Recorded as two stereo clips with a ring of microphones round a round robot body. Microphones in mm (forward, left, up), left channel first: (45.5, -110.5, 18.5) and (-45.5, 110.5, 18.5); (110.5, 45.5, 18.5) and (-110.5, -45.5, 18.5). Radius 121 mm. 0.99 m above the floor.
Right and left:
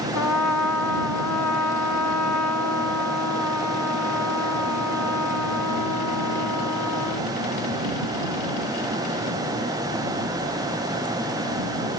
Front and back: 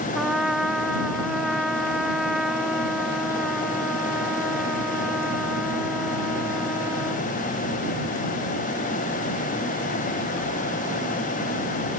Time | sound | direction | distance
0.1 | a trumpet | 70° right | ?